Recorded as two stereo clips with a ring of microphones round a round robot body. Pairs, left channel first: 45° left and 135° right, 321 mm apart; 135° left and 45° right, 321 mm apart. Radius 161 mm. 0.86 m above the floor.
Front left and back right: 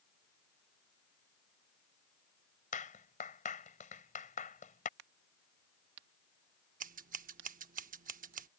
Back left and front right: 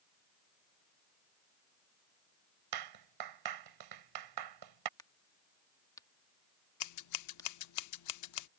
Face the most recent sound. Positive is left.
turn(degrees=160)